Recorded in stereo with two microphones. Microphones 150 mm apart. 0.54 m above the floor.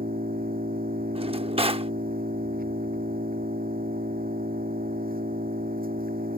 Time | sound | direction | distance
0.0 | an engine running | 75° right (ahead or behind) | ?
1.1 | a drawer | 40° right (ahead or behind) | ?